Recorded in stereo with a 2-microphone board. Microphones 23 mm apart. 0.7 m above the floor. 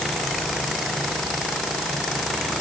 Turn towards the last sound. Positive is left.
No sound to turn to.